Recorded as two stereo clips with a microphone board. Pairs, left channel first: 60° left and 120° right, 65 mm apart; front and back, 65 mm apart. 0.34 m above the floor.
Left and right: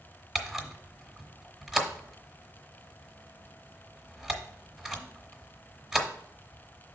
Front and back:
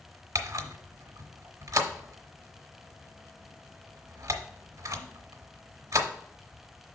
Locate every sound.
0.3 s a camera shutter: 155° left, 1.1 m